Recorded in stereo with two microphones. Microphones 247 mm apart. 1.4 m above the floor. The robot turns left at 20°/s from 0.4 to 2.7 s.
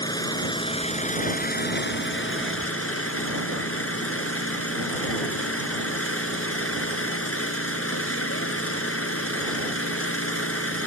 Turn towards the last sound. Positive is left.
turn(degrees=120)